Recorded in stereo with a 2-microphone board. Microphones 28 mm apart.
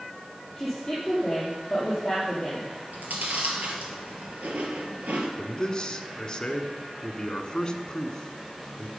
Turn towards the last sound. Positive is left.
turn(degrees=25)  # may be behind; listen again after turning